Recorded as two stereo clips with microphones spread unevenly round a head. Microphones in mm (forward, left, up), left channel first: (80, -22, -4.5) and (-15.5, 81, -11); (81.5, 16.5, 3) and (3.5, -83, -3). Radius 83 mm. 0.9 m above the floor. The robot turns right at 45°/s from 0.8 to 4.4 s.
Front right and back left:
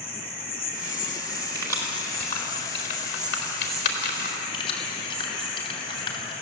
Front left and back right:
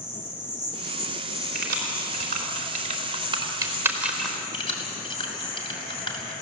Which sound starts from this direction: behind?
Keys jangling, at 1.6 s.